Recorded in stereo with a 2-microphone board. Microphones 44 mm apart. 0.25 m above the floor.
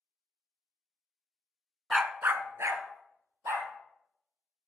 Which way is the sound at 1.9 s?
10° right (ahead or behind).